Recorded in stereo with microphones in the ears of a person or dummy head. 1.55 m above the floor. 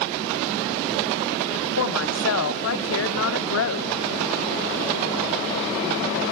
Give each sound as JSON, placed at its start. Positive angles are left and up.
{"t": 1.8, "sound": "a woman speaking", "side_deg": 80, "distance_m": 0.6}